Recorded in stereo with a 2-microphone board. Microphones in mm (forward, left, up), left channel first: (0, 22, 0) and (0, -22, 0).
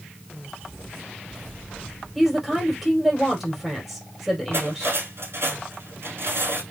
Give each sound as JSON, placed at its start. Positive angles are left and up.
{"t": 2.1, "sound": "a woman speaking", "side_deg": 0, "distance_m": 3.5}
{"t": 4.5, "sound": "cutlery clinking", "side_deg": -60, "distance_m": 2.5}